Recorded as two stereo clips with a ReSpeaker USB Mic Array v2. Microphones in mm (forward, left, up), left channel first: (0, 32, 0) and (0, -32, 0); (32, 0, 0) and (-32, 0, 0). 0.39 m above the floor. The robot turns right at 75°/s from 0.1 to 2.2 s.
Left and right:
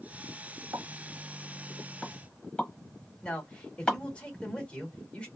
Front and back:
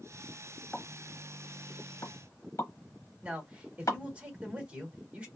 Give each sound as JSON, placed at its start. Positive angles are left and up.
{"t": 0.7, "sound": "a pop", "azimuth_deg": -90, "distance_m": 1.0}
{"t": 3.2, "sound": "a man speaking", "azimuth_deg": 140, "distance_m": 1.3}